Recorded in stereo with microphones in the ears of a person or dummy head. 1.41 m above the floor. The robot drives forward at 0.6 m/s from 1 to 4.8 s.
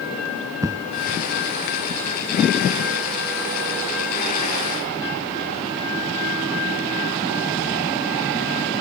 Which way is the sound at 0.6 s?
15° right (ahead or behind).